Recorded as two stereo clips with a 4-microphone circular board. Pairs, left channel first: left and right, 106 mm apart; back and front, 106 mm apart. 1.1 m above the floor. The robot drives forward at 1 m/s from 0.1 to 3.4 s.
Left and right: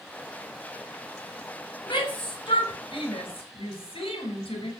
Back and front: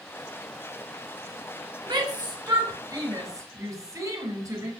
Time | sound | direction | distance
1.9 | a shout | 50° left | 6.5 m